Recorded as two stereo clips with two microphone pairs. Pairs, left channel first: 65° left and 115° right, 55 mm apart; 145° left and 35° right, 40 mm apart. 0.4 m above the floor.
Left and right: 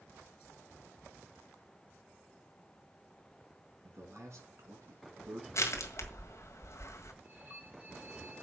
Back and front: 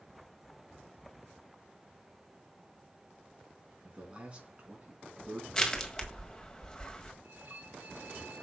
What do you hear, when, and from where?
3.8 s a man speaking: 95° right, 4.5 m
5.5 s crushing: 80° left, 1.7 m
7.2 s a violin: 65° right, 3 m